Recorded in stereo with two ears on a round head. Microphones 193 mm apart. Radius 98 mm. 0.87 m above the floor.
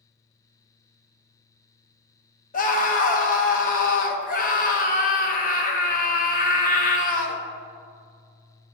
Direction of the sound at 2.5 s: 40° left (ahead or behind).